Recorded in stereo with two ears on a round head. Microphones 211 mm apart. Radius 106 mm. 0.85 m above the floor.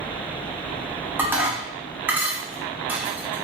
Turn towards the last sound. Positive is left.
turn(degrees=-10)  # may be behind; listen again after turning